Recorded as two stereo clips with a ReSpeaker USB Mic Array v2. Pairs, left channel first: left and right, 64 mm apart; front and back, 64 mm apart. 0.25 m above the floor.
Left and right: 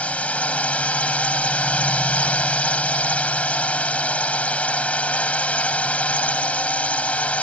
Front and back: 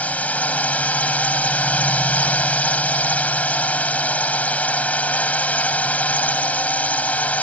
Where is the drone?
45° left.